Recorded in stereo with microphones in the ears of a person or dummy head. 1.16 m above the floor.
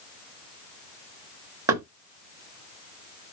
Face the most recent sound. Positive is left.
turn(degrees=-20)  # may be behind; listen again after turning